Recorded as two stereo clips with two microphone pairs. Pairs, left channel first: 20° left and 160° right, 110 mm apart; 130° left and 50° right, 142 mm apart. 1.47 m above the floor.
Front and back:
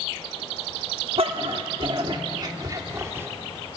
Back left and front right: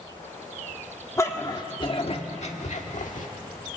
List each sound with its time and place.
1.2 s a dog barking: 165° right, 1.5 m; by 3.3 s 135° left, 1.8 m